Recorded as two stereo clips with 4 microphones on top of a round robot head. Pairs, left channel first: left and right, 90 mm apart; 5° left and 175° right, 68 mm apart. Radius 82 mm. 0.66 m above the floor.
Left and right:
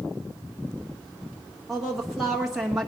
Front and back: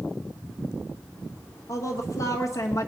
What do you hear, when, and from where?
1.7 s a woman speaking: 5° right, 1.2 m